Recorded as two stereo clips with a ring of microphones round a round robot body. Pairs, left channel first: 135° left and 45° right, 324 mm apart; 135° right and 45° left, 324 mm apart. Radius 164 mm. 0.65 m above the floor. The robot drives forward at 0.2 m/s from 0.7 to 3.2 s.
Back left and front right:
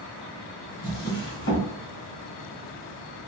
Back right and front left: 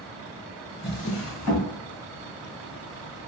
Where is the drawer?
170° right, 2 m; by 1.7 s 175° right, 2.5 m.